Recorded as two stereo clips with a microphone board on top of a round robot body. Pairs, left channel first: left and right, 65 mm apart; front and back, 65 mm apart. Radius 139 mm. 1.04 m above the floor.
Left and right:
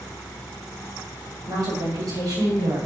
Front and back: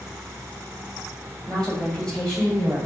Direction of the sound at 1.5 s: 75° right.